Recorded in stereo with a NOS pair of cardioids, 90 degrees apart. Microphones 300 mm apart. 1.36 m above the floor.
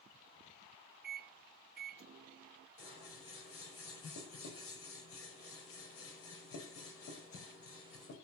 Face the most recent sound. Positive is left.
turn(degrees=45)